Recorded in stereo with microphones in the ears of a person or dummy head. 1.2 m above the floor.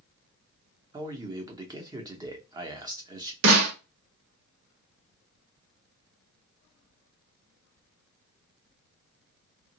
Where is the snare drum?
75° right (ahead or behind), 1.2 m.